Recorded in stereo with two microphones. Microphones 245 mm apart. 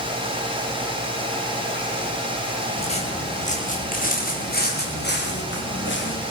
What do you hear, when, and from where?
2.8 s footsteps: 25° left (ahead or behind), 9.5 m; by 6.2 s 50° left (ahead or behind), 10 m